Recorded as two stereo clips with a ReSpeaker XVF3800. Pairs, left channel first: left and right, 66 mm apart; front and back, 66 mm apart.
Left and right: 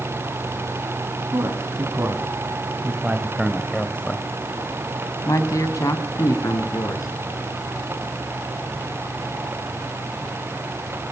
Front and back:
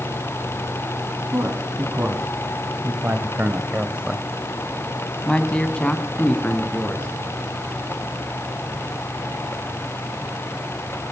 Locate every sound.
1.3 s a man speaking: 130° right, 3.5 m; by 7.1 s 65° left, 4 m